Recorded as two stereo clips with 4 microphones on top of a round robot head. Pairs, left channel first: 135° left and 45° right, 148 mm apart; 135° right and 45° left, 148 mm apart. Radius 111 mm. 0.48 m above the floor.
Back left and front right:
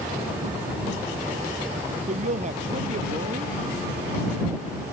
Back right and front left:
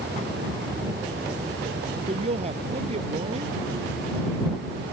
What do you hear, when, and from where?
2.1 s a woman speaking: 5° right